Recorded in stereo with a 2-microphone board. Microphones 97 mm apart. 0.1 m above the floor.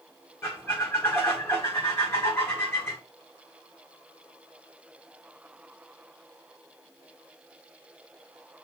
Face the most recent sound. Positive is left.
turn(degrees=25)  # may be behind; listen again after turning